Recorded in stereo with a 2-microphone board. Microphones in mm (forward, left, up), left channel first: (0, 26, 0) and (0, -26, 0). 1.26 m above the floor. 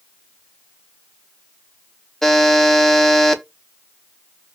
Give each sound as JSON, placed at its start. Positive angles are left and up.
{"t": 2.2, "sound": "a buzzer", "side_deg": 5, "distance_m": 0.5}